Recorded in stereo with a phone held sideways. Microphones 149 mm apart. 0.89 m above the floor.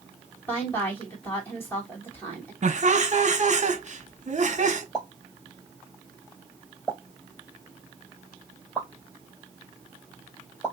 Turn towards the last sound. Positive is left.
turn(degrees=10)  # may be behind; listen again after turning